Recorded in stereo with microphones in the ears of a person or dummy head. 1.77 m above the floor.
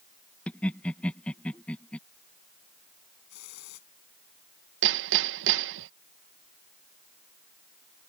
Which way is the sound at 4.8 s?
65° right (ahead or behind).